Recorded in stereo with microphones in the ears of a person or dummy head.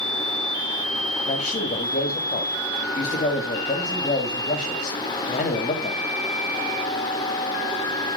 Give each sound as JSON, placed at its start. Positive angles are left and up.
{"t": 1.2, "sound": "a man speaking", "side_deg": 35, "distance_m": 2.0}